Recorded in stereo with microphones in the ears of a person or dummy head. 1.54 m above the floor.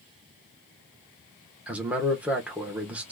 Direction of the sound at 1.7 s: 10° right (ahead or behind).